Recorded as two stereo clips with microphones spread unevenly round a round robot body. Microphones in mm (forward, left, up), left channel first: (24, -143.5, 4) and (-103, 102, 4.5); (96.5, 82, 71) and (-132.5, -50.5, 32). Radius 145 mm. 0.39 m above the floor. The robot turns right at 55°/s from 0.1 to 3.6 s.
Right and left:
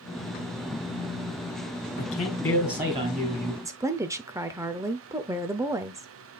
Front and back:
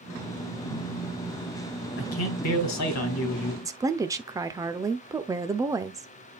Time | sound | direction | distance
2.0 | a man speaking | 10° right | 2.5 m
3.6 | a woman speaking | straight behind | 0.8 m